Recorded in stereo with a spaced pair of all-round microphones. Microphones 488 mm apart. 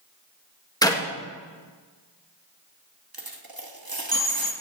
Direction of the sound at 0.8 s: 10° left (ahead or behind).